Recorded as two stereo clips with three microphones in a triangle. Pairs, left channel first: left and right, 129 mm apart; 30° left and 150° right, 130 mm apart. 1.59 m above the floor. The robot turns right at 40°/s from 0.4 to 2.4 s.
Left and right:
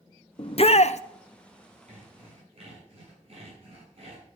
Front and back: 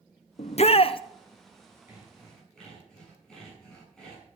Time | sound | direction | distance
0.4 | a shout | 50° left | 0.8 m
1.9 | sawing | 75° right | 8 m